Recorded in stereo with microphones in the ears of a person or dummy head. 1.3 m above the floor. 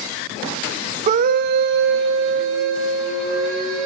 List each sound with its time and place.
1.1 s a scream: 40° right (ahead or behind), 0.5 m; by 3.9 s 75° right (ahead or behind), 3.5 m